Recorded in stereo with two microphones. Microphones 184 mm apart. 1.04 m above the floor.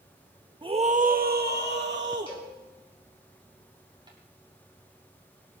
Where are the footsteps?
25° right (ahead or behind), 7 m.